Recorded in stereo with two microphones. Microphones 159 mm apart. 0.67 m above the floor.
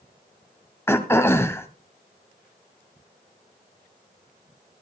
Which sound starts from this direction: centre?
Throat clearing, at 0.9 s.